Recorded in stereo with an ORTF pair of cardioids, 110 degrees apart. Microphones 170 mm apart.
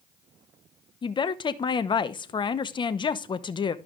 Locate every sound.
1.0 s a woman speaking: 30° left, 0.9 m